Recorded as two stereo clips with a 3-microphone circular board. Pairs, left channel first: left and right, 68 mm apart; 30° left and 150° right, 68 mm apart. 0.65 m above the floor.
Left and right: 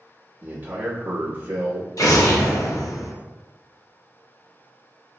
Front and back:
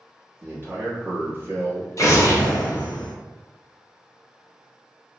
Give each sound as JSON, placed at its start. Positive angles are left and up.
{"t": 0.4, "sound": "a man speaking", "azimuth_deg": -130, "distance_m": 1.0}
{"t": 2.0, "sound": "an explosion", "azimuth_deg": 65, "distance_m": 0.5}